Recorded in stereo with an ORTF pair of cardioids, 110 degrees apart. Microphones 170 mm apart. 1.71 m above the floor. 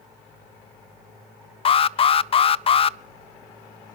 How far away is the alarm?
About 0.5 m.